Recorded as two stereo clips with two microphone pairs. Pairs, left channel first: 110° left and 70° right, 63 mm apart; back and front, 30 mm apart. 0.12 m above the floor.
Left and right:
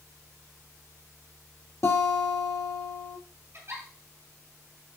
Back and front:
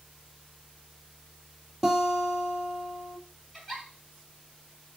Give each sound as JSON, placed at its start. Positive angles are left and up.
{"t": 1.8, "sound": "a guitar", "azimuth_deg": 90, "distance_m": 1.7}
{"t": 3.5, "sound": "a giggle", "azimuth_deg": -100, "distance_m": 3.0}